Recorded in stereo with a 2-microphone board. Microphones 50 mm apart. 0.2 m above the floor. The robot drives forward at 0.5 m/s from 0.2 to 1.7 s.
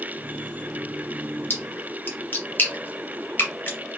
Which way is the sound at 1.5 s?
35° left (ahead or behind).